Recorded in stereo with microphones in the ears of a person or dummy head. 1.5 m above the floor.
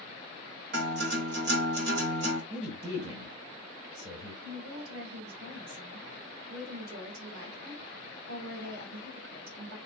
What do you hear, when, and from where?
0.7 s a guitar: 65° right (ahead or behind), 0.9 m
2.5 s a man speaking: 30° right (ahead or behind), 1.3 m
4.4 s a woman speaking: 85° right, 1.7 m